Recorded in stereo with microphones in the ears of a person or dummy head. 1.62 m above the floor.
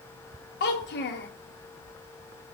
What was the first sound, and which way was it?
A child speaking, 50° left (ahead or behind).